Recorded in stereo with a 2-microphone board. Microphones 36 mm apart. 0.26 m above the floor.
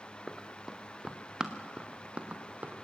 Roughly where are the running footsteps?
Centre.